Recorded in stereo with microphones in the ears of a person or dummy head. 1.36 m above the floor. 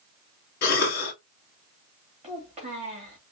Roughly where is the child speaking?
Right.